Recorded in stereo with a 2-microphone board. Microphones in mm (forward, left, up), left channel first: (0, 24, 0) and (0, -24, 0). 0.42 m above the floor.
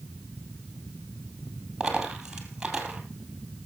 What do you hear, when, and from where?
1.8 s a dropped coin: 15° right (ahead or behind), 2.5 m